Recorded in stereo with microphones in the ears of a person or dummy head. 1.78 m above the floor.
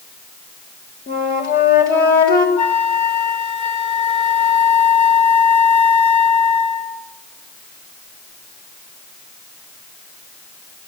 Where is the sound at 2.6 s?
35° left (ahead or behind), 2.5 m.